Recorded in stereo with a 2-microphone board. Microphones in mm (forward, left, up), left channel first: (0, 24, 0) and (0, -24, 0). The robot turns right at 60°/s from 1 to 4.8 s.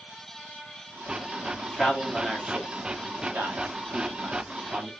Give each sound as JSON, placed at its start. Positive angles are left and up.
{"t": 1.6, "sound": "a man speaking", "side_deg": 25, "distance_m": 1.5}